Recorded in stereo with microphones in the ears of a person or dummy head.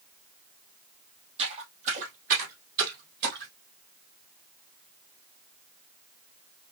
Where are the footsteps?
35° right (ahead or behind), 3 m; by 3.5 s 55° right (ahead or behind), 3 m.